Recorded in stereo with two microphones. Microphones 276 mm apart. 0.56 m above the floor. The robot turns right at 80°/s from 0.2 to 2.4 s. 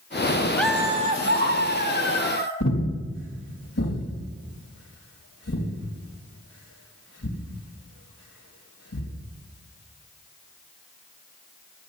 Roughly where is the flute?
I don't hear a flute.